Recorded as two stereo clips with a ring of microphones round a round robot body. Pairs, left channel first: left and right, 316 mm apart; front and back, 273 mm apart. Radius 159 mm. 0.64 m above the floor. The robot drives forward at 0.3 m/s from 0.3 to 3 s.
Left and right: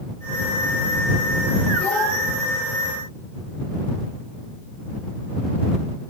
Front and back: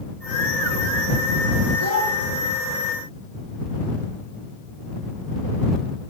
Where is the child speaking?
175° left, 8 m.